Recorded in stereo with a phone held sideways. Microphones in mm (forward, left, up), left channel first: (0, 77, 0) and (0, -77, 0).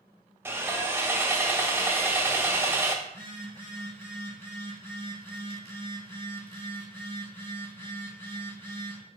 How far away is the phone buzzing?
About 1.7 m.